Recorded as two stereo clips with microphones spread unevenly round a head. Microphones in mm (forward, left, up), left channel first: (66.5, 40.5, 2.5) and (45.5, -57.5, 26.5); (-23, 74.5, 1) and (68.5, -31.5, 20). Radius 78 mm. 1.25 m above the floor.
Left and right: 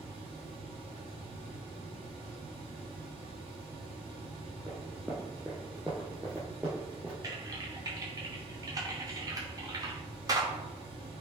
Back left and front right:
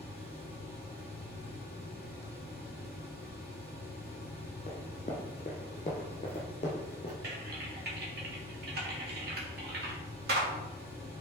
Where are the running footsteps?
175° right, 2.5 m; by 7.1 s 170° right, 3.5 m.